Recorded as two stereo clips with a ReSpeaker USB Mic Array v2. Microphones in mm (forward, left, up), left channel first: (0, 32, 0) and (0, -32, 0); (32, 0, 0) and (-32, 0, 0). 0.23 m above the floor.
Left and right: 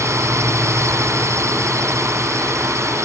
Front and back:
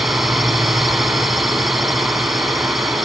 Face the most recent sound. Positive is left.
turn(degrees=-90)